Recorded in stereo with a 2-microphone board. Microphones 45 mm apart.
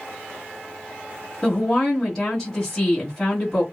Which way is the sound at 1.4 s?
10° left (ahead or behind).